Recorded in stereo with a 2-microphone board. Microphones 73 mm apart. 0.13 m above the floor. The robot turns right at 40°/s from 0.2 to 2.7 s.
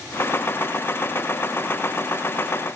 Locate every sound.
Only background noise.